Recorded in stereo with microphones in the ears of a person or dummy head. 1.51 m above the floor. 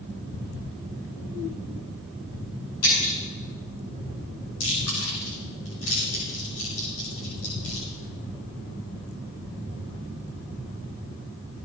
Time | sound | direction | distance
2.8 | breaking glass | 80° left | 7.5 m
4.6 | chewing | 70° left (ahead or behind) | 5.5 m